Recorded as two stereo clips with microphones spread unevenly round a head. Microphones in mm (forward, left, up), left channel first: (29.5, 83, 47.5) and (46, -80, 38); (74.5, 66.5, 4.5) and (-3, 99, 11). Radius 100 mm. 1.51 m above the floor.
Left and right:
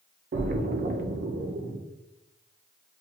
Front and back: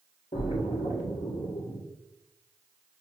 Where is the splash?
55° right, 0.6 m.